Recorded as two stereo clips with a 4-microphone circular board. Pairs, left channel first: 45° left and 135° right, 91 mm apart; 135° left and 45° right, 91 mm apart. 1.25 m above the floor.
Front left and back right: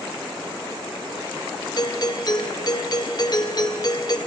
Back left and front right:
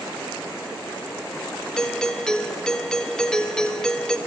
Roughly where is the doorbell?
Ahead left.